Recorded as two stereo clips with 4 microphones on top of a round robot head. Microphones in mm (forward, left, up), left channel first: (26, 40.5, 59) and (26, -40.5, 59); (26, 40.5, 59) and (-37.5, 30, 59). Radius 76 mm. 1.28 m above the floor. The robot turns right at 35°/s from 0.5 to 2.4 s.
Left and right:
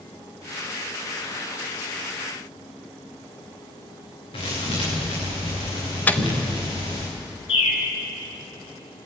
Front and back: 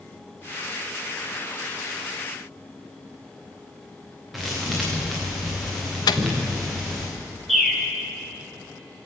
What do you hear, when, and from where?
4.3 s a thud: 100° left, 7.5 m
6.1 s a microwave: 20° left, 0.8 m
7.5 s a bird: 100° left, 4 m